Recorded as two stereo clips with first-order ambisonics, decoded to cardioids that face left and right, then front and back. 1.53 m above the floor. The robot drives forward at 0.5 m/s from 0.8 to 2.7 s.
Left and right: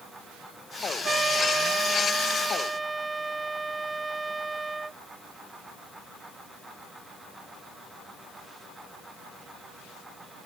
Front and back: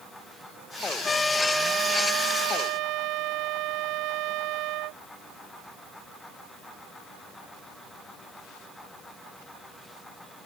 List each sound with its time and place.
1.0 s a trumpet: 40° right; by 5.0 s 170° right